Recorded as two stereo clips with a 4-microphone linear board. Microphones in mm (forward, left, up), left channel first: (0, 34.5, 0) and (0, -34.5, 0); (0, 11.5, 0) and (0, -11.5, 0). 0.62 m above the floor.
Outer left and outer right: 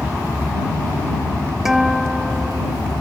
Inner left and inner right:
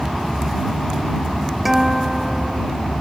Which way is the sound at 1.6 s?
5° right (ahead or behind).